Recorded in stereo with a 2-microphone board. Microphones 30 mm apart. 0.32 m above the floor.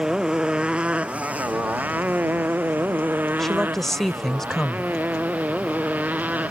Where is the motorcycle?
25° right (ahead or behind); by 6.5 s 60° right (ahead or behind).